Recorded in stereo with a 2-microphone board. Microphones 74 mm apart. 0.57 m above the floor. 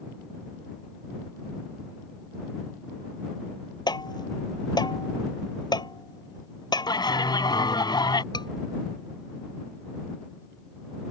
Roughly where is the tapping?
Left.